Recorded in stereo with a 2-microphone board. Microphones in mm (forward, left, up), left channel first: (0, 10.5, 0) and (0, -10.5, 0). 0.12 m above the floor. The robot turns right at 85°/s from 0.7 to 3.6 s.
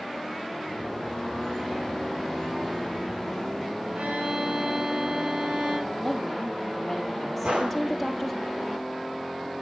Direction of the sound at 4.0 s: 80° right.